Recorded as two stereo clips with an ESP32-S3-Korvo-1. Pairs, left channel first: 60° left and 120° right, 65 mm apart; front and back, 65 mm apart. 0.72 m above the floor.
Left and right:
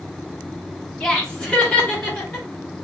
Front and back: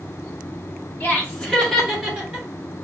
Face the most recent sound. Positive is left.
turn(degrees=115)